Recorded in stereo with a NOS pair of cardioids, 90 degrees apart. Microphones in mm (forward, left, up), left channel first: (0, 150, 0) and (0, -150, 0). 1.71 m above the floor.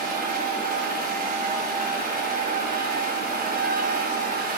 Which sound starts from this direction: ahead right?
A machine running, at 0.0 s.